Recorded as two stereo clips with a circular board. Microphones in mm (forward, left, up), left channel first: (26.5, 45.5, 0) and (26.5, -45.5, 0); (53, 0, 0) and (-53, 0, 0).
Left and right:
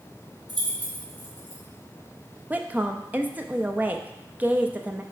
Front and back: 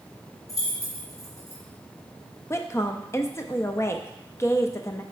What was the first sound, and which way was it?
Keys jangling, 60° right.